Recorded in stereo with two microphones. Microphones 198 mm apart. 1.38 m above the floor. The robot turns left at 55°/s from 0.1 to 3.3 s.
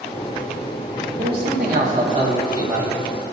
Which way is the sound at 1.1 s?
75° right.